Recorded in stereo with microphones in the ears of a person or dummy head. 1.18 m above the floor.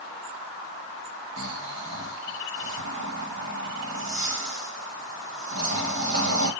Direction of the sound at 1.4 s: 65° right (ahead or behind).